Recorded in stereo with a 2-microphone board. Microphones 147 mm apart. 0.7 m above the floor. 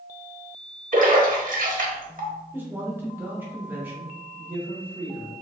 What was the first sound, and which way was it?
A splash, 65° right (ahead or behind).